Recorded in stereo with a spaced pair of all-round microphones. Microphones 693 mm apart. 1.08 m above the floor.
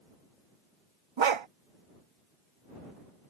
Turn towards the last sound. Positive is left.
turn(degrees=-45)  # may be behind; listen again after turning